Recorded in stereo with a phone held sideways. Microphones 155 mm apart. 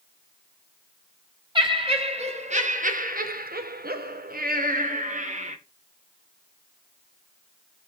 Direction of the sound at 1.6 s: 35° right (ahead or behind).